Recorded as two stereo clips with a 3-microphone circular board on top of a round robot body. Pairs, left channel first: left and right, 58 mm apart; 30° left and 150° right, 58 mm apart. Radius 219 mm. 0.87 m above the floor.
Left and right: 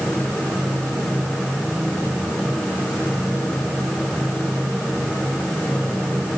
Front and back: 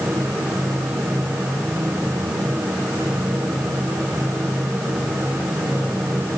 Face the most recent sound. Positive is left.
No sound to turn to.